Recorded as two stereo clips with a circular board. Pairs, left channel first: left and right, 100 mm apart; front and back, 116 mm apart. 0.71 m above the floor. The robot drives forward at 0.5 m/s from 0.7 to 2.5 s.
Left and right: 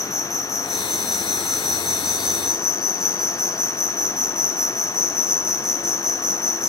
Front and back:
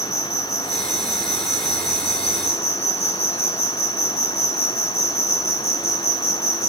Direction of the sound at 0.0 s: 5° right.